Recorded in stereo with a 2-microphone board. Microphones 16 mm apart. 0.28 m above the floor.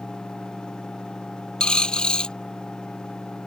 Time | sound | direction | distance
1.6 | a dropped coin | 65° left (ahead or behind) | ?